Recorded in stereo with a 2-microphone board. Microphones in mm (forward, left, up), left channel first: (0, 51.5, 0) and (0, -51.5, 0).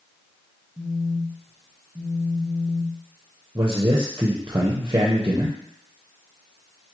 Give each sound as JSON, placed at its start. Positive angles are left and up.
{"t": 0.8, "sound": "a phone buzzing", "side_deg": -20, "distance_m": 0.6}
{"t": 3.5, "sound": "a man speaking", "side_deg": -35, "distance_m": 0.6}